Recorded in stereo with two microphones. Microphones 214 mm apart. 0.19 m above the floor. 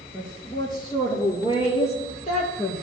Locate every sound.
0.1 s a woman speaking: 15° left (ahead or behind), 3 m; by 2.8 s 35° left (ahead or behind), 4 m